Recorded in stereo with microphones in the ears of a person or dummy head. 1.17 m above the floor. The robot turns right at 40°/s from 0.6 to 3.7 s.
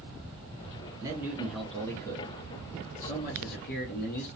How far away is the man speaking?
About 0.6 m.